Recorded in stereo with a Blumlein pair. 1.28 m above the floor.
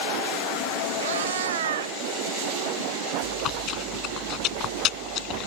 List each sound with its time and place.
1.0 s a cat meowing: 60° right
3.2 s chewing: 35° left